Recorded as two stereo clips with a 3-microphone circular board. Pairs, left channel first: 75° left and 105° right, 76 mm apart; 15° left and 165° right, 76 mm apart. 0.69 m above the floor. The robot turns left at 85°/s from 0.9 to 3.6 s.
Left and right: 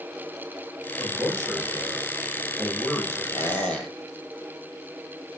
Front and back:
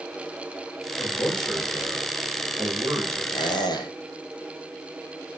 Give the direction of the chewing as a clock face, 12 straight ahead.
I don't hear chewing.